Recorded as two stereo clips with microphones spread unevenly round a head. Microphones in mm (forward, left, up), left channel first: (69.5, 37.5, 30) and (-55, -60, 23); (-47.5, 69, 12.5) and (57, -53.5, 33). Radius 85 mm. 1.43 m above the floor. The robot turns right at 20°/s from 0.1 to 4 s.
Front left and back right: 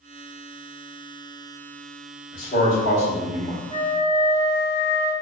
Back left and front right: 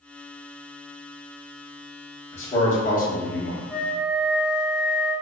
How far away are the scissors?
No scissors in this recording.